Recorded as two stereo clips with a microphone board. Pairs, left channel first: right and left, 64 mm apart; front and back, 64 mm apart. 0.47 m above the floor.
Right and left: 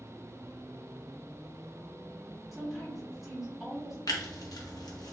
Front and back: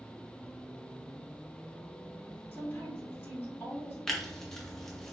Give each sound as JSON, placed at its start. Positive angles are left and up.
{"t": 2.5, "sound": "a woman speaking", "azimuth_deg": 5, "distance_m": 1.3}
{"t": 4.1, "sound": "tearing paper", "azimuth_deg": -80, "distance_m": 0.7}